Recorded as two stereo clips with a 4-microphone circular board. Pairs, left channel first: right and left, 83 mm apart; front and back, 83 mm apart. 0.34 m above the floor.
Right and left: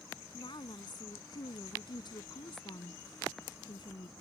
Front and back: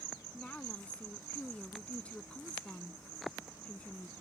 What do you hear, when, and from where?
0.3 s a woman speaking: 75° right